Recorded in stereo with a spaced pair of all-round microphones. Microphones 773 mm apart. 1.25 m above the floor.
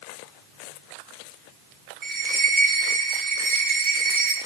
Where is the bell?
85° right, 1.5 m.